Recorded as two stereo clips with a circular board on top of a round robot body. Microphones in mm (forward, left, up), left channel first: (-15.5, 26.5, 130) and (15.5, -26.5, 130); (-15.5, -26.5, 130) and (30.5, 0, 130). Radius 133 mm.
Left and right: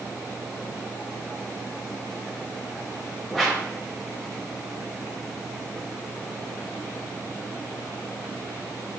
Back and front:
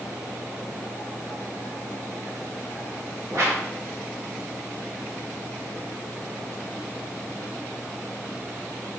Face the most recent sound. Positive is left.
turn(degrees=35)